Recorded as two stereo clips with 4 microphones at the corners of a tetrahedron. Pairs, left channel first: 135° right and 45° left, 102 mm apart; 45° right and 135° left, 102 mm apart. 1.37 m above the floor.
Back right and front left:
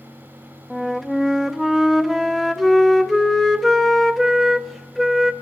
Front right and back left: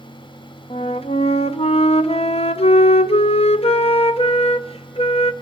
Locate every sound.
0.7 s a flute: 45° right, 0.7 m